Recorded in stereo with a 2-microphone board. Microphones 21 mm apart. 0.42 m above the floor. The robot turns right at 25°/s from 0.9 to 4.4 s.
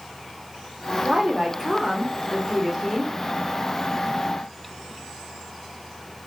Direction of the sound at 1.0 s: 25° right (ahead or behind).